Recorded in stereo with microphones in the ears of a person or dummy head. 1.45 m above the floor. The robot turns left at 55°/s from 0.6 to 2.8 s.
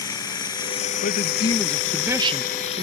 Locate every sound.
0.0 s running water: 155° left; by 2.8 s 35° left
1.0 s a man speaking: 45° left; by 2.8 s 50° right